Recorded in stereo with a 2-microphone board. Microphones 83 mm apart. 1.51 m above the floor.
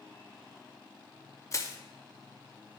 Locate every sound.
1.5 s crushing: 35° left (ahead or behind), 0.6 m